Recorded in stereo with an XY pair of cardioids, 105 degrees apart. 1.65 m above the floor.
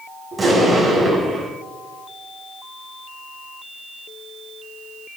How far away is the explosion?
About 6 m.